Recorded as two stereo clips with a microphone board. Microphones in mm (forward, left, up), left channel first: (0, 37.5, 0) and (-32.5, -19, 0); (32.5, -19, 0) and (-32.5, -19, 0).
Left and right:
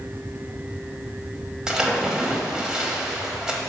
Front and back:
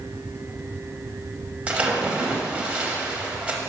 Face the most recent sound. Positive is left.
turn(degrees=180)